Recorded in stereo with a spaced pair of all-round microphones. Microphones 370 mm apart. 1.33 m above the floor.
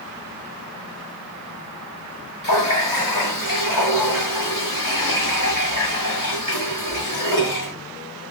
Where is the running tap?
55° left (ahead or behind), 1.9 m.